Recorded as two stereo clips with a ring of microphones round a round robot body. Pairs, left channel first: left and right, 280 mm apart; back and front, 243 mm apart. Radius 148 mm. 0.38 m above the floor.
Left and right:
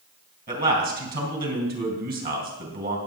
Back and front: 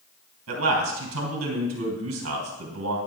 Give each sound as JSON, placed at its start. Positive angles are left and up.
{"t": 0.5, "sound": "a man speaking", "azimuth_deg": -35, "distance_m": 3.0}